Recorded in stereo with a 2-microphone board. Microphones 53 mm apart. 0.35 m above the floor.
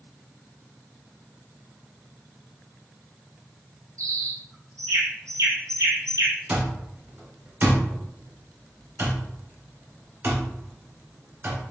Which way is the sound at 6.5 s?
50° right (ahead or behind).